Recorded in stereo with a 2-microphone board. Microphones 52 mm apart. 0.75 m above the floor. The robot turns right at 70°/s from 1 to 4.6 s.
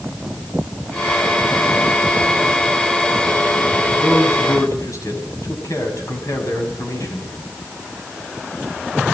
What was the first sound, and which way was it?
A man speaking, 50° left.